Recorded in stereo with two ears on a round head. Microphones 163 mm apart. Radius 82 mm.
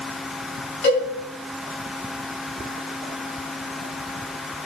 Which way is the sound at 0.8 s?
65° left (ahead or behind).